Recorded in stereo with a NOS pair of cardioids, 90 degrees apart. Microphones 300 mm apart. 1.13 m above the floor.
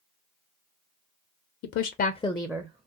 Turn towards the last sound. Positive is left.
turn(degrees=-25)